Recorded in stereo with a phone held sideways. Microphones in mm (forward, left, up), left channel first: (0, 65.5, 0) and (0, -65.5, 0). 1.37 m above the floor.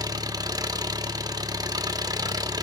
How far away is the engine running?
About 0.9 m.